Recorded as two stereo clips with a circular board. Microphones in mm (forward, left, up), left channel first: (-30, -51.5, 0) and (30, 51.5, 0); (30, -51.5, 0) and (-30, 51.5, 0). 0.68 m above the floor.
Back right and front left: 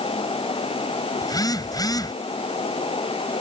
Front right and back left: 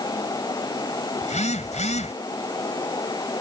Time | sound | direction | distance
1.2 | a phone buzzing | 65° right | ?